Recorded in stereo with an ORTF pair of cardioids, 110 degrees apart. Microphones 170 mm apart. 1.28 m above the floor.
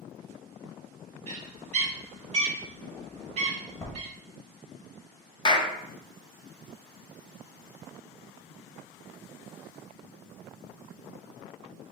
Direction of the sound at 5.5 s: 30° left.